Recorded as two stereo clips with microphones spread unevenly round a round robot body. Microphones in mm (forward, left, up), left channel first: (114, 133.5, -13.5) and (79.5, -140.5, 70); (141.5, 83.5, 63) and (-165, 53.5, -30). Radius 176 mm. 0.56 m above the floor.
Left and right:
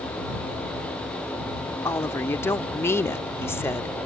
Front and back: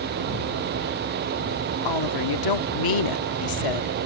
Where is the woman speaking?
15° left.